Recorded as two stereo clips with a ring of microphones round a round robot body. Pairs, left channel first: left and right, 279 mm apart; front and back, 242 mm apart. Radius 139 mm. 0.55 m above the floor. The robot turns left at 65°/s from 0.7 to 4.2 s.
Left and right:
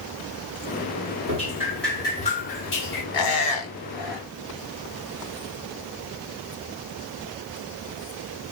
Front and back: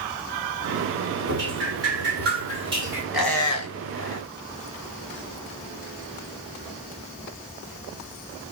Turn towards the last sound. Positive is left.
turn(degrees=25)